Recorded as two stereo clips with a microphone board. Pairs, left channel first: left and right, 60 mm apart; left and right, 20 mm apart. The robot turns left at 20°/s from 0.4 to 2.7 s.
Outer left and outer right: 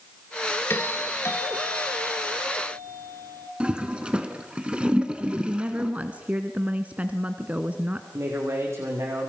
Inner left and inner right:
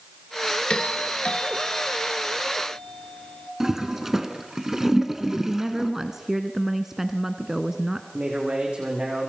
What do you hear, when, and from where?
0.7 s a doorbell: 130° left, 2.5 m; by 3.5 s 90° left, 2.5 m
3.6 s a toilet flushing: 15° right (ahead or behind), 1.9 m
5.2 s a woman speaking: 25° right (ahead or behind), 1.3 m
8.1 s a man speaking: 50° right (ahead or behind), 9.5 m